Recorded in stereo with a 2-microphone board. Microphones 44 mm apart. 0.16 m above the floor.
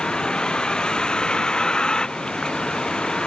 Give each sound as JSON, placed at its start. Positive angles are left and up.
{"t": 0.0, "sound": "a vehicle", "side_deg": 20}